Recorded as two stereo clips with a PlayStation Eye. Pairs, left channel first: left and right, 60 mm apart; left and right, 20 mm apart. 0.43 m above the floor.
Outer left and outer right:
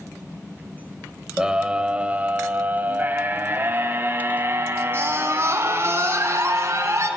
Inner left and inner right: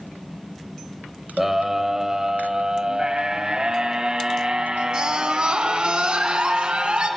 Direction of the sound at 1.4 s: 15° right (ahead or behind).